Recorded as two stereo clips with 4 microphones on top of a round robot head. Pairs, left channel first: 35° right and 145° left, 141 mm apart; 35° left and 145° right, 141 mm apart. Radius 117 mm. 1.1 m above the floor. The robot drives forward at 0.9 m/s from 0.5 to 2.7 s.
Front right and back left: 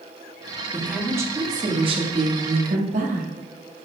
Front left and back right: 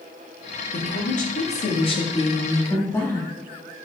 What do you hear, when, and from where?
0.7 s a woman speaking: 60° left, 2 m; by 3.3 s 110° left, 2.0 m